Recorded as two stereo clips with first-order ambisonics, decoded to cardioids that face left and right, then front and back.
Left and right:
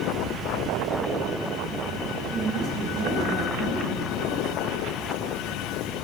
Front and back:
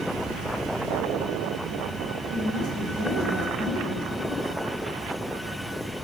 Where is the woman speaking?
55° right, 3.5 m.